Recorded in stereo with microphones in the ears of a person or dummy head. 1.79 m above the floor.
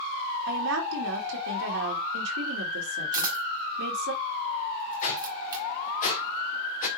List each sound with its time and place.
0.5 s a woman speaking: 75° right (ahead or behind), 3 m
3.1 s a camera shutter: 25° right (ahead or behind), 3.5 m
5.0 s a whoosh: 40° left (ahead or behind), 1.9 m